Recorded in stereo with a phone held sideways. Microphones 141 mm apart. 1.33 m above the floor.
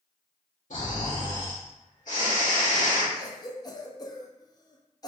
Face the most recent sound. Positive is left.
turn(degrees=30)  # may be behind; listen again after turning